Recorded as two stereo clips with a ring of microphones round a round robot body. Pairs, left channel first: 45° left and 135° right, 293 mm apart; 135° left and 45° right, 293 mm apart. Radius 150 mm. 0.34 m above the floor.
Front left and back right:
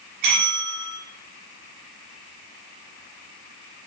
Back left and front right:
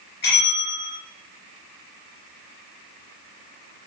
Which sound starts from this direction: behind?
A bell, at 0.2 s.